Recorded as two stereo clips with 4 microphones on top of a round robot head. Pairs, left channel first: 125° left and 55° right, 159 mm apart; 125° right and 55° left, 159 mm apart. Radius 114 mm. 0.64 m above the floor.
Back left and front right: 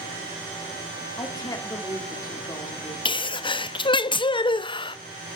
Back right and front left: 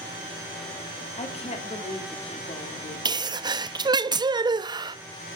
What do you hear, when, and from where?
1.2 s a woman speaking: 170° right, 2 m
3.0 s a sneeze: 95° left, 0.5 m